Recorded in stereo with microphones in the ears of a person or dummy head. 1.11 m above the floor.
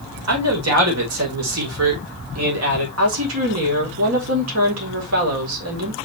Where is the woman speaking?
80° right, 4 m.